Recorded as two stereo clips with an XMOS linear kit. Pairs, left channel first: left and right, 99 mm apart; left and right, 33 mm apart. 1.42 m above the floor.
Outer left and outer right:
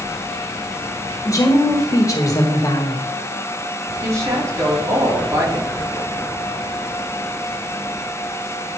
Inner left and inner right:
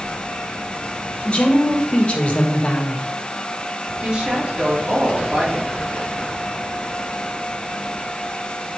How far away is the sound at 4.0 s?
About 2 m.